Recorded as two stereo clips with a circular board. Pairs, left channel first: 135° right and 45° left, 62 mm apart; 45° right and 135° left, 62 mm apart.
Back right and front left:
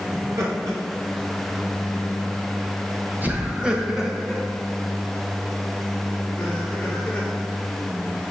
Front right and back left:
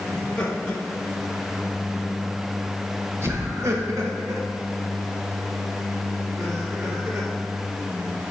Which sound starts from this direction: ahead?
Laughter, at 0.1 s.